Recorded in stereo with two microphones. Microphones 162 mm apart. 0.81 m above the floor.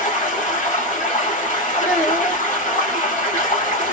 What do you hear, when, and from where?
0.0 s running water: 50° left (ahead or behind), 1.3 m
1.8 s a child speaking: 75° left (ahead or behind), 1.8 m